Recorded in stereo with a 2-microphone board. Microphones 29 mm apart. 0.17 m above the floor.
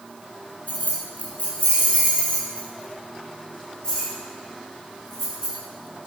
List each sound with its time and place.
0.7 s keys jangling: 50° left (ahead or behind), 3 m; by 5.5 s 20° left (ahead or behind), 7 m